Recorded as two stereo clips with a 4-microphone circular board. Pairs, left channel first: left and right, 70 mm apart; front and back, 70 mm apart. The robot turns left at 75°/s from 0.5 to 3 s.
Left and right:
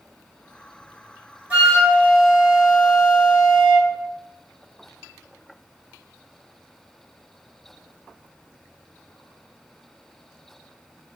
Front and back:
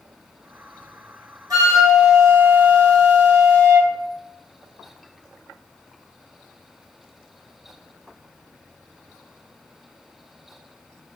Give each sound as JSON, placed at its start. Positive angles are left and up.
{"t": 1.5, "sound": "a flute", "azimuth_deg": -160, "distance_m": 1.1}